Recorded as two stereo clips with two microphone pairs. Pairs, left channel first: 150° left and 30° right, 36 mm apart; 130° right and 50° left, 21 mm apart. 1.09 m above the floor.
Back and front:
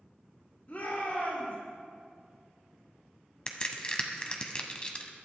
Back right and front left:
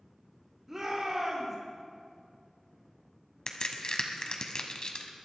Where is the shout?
110° left, 3 m.